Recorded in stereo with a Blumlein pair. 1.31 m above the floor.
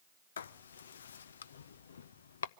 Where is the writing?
65° left, 0.5 m.